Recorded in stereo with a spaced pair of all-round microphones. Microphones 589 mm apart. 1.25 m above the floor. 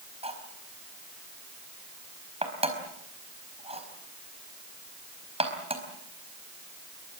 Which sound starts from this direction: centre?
Cutlery clinking, at 0.2 s.